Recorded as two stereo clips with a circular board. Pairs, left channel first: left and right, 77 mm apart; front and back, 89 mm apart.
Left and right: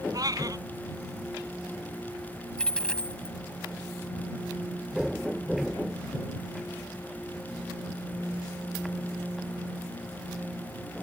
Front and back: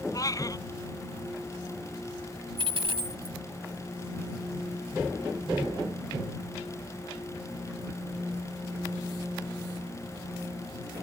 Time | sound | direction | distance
0.1 | a cat meowing | 50° right | ?
2.6 | a dropped coin | 170° left | ?